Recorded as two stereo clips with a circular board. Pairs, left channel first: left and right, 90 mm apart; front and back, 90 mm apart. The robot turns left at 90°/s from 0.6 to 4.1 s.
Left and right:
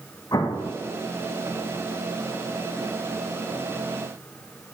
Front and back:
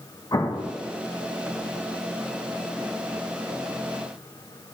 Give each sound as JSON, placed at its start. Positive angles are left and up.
{"t": 0.3, "sound": "an explosion", "azimuth_deg": 45, "distance_m": 0.9}